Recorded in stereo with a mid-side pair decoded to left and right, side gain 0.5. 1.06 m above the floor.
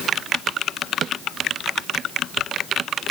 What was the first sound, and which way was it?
Only background noise.